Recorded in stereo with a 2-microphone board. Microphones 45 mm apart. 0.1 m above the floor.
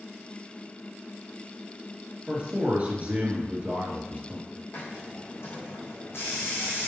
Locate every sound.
2.3 s a man speaking: 35° right (ahead or behind), 1.9 m
4.7 s a hiss: 65° left (ahead or behind), 3.5 m